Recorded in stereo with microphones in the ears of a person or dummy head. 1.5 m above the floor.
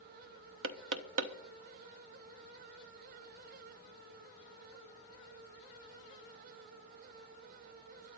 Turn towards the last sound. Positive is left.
turn(degrees=-75)  # may be behind; listen again after turning